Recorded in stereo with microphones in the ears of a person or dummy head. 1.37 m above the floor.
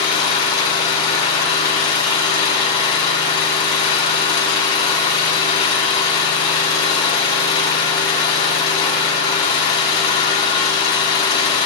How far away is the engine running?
About 1.9 m.